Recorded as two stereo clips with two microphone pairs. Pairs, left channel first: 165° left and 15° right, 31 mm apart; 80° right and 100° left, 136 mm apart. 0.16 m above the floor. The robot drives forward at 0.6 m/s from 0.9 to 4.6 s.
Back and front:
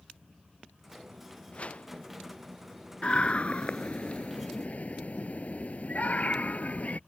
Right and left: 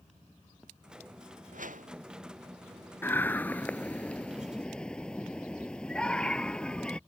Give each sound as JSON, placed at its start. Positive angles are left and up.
{"t": 1.5, "sound": "a whoosh", "azimuth_deg": 115}
{"t": 3.0, "sound": "a scream", "azimuth_deg": -150}